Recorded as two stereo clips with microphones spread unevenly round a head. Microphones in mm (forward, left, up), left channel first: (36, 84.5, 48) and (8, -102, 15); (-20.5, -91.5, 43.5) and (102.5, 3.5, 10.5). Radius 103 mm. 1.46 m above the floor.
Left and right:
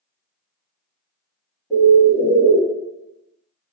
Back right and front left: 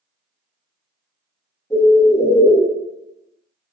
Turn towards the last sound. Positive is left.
turn(degrees=160)